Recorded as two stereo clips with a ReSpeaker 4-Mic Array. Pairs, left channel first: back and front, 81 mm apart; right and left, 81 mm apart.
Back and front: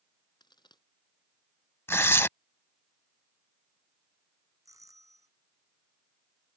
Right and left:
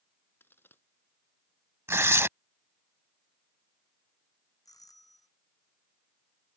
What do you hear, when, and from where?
0.4 s a crack: 155° right
1.9 s tearing paper: 135° left
4.7 s a doorbell: 45° right